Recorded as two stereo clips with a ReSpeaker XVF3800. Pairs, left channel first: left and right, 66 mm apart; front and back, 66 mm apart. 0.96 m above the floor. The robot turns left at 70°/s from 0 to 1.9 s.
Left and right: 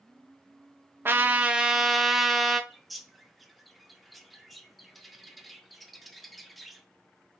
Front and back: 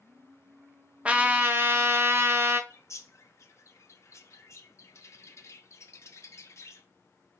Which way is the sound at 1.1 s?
120° right.